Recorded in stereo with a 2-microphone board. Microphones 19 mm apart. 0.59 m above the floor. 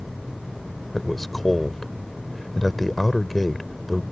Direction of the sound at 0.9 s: 20° left (ahead or behind).